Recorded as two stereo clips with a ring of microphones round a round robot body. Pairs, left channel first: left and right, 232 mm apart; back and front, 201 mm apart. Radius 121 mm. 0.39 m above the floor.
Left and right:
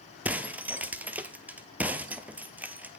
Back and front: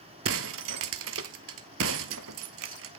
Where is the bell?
No bell in this recording.